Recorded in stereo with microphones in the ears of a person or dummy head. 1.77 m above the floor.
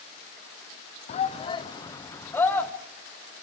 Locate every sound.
1.1 s a shout: 40° left (ahead or behind), 1.0 m; by 2.7 s 10° left (ahead or behind), 1.7 m